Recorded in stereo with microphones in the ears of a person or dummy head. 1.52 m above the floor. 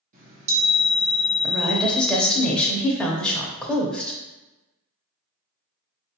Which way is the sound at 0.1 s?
50° right (ahead or behind).